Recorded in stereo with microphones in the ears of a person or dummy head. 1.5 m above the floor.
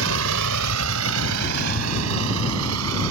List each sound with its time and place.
0.0 s a vehicle: 80° right